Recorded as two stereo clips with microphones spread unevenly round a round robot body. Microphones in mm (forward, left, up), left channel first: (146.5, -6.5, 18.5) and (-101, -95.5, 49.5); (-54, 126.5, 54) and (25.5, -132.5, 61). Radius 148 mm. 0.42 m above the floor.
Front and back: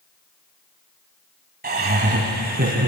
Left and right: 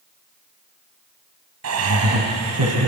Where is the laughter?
105° right, 3.5 m.